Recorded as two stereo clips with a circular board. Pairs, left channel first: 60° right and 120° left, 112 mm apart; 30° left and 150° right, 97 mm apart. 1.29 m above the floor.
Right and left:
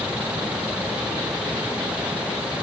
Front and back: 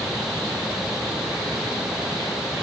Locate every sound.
Only background noise.